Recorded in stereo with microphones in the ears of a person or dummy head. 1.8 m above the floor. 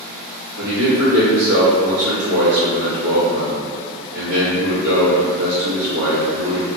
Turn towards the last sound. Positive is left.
turn(degrees=-75)  # may be behind; listen again after turning